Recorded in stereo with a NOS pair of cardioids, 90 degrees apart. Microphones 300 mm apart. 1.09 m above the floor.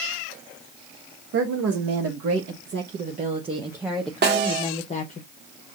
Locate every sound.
1.3 s a woman speaking: 65° right, 1.5 m; by 5.2 s 30° left, 1.2 m
4.2 s a snare drum: 35° right, 1.4 m